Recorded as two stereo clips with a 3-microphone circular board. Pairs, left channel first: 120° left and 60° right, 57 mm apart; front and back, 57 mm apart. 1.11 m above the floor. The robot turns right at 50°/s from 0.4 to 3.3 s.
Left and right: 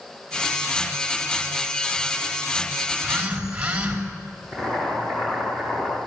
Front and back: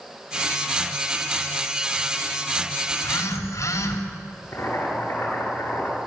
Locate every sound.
2.9 s a phone buzzing: 5° right, 2.5 m; by 4.0 s 15° left, 2.5 m
4.5 s boiling: 40° left, 8.5 m